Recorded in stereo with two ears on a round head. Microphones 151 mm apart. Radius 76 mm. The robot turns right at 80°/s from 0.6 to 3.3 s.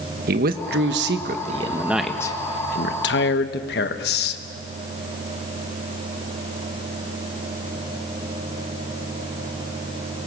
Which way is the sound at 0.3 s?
115° right.